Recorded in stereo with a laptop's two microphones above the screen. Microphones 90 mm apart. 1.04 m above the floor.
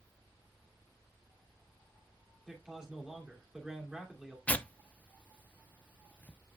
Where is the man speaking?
10° right (ahead or behind), 2.5 m.